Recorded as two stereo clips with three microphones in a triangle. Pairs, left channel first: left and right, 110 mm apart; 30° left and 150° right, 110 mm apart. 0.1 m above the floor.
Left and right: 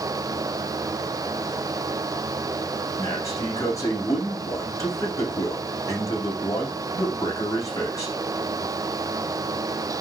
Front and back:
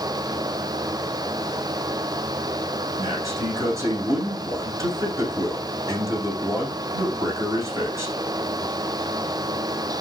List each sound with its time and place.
3.0 s a man speaking: 150° left, 6.5 m